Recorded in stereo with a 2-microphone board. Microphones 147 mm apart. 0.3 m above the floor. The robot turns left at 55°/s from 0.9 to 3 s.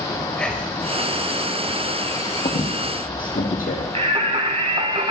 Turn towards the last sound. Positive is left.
turn(degrees=-40)  # may be behind; listen again after turning